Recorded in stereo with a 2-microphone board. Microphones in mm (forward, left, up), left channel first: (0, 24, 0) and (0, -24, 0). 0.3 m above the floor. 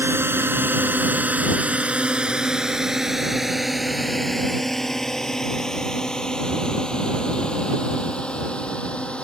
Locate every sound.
0.0 s a drone: 55° right (ahead or behind); by 9.2 s 25° left (ahead or behind)